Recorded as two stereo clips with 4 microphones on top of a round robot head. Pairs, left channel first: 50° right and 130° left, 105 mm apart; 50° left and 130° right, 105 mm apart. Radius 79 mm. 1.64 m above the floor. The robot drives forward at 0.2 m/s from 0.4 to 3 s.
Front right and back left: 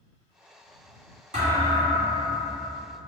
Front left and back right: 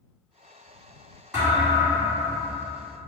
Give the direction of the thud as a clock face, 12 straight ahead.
7 o'clock.